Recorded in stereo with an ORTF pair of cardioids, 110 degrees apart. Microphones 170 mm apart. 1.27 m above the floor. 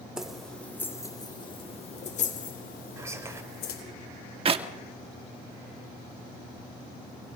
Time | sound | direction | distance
0.2 | keys jangling | 5° right | 3 m
3.0 | whispering | 15° right | 4.5 m
4.5 | a clap | 35° right | 1.9 m